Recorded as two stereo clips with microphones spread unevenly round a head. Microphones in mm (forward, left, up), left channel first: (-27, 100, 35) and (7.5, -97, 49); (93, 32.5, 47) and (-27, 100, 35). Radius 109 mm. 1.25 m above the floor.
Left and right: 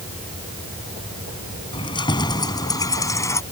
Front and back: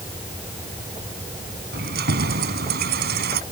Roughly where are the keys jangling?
Behind.